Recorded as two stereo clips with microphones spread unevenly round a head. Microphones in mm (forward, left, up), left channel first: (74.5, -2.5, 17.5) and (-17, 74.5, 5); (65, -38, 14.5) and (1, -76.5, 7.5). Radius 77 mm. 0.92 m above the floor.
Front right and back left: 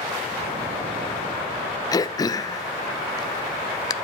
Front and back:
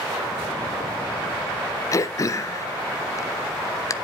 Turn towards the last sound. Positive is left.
turn(degrees=10)